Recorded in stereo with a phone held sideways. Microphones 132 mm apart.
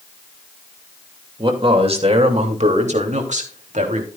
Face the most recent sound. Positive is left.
turn(degrees=-70)  # may be behind; listen again after turning